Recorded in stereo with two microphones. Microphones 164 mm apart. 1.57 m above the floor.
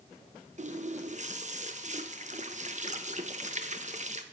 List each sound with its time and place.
0.6 s a running tap: 45° right (ahead or behind), 0.9 m